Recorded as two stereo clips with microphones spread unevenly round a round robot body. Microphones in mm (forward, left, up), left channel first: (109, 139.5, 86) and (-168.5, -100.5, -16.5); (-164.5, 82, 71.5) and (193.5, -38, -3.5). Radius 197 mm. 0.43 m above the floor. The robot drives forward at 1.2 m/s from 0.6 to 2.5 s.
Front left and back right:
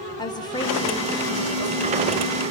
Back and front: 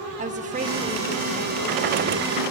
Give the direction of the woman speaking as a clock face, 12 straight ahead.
2 o'clock.